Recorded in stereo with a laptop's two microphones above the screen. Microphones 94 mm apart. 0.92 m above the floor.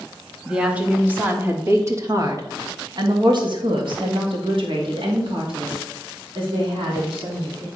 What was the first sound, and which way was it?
A woman speaking, 10° right (ahead or behind).